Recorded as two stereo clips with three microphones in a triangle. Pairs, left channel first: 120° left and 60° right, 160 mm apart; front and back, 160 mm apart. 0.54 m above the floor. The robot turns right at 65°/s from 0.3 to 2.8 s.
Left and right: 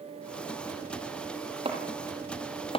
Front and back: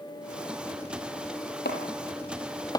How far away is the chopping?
About 6.5 m.